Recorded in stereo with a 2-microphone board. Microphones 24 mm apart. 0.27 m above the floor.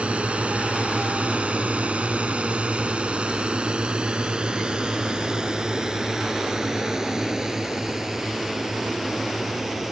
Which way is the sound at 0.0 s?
60° right (ahead or behind).